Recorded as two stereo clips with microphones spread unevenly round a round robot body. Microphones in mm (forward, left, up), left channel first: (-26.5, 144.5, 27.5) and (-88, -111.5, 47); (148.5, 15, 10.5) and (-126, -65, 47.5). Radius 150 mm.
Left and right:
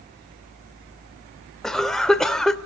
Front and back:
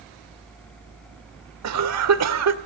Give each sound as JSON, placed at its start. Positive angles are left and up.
{"t": 1.6, "sound": "a cough", "azimuth_deg": 165, "distance_m": 2.0}